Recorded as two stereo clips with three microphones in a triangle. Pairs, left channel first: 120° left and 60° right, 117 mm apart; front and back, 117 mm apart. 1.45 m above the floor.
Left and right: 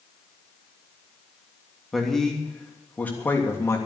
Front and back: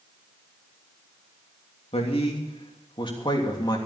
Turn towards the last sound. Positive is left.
turn(degrees=50)